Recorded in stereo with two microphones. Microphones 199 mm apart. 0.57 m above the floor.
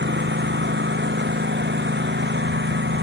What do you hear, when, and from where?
0.0 s a lawn mower: 65° right (ahead or behind)